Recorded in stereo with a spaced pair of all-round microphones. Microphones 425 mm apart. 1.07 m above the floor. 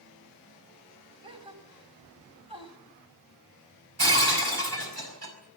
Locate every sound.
1.2 s a gasp: 55° left (ahead or behind), 3.5 m
4.0 s breaking glass: 65° right (ahead or behind), 5 m